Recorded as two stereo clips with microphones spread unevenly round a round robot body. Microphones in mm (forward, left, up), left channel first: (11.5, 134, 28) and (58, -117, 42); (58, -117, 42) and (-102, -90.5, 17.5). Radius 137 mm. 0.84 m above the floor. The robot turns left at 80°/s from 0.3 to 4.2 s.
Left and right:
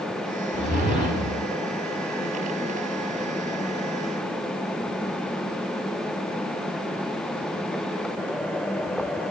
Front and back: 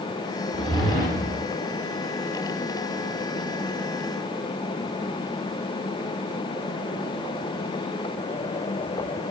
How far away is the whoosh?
About 1.7 m.